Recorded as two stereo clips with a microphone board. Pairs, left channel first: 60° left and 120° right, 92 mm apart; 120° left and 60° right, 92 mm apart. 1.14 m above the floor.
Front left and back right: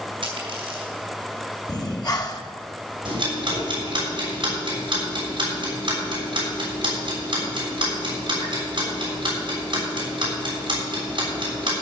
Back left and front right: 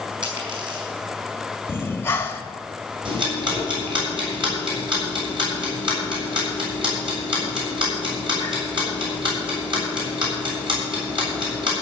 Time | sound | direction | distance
0.2 | a dropped coin | 95° right | 5 m
1.7 | breathing | 65° left | 1.2 m
3.0 | ticking | 90° right | 6.5 m